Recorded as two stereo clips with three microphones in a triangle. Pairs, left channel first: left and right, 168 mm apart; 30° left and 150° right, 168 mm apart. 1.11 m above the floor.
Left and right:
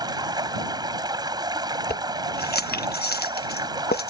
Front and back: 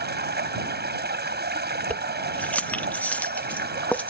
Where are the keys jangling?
110° left.